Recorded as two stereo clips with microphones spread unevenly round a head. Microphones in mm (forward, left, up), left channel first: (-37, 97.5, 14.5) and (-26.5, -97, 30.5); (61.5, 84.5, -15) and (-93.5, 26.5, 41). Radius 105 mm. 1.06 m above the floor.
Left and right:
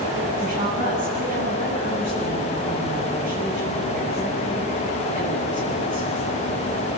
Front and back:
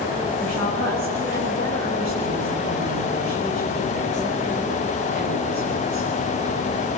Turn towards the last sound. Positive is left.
turn(degrees=-135)